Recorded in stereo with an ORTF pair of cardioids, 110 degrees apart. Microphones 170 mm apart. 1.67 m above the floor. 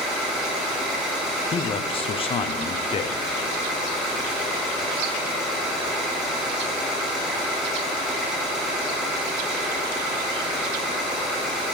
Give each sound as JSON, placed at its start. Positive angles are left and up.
{"t": 0.0, "sound": "an engine running", "azimuth_deg": -5, "distance_m": 2.5}
{"t": 1.5, "sound": "a man speaking", "azimuth_deg": 35, "distance_m": 0.7}